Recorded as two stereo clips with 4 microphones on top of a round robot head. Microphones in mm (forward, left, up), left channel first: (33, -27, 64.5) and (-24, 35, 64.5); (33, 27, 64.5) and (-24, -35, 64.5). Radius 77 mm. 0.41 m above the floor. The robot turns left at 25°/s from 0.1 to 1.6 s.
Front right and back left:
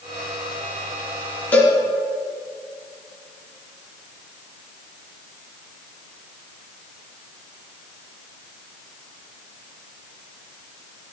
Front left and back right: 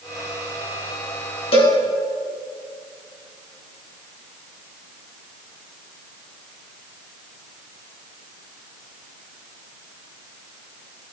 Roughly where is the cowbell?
Ahead left.